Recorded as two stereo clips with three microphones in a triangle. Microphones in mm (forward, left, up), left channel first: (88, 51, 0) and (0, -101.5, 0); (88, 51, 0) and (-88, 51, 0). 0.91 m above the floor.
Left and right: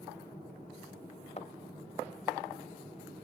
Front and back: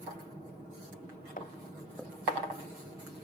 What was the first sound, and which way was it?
A thud, 15° left.